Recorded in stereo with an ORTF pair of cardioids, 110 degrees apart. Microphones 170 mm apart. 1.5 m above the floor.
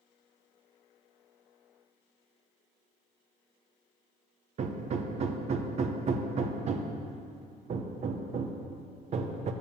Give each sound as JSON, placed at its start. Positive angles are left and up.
{"t": 4.6, "sound": "hammering", "azimuth_deg": -45, "distance_m": 0.8}